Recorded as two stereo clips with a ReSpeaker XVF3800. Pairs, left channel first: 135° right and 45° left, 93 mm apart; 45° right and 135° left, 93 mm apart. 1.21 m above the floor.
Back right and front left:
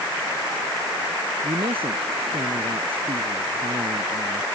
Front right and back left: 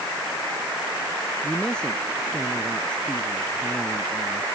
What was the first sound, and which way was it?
A man speaking, 35° left.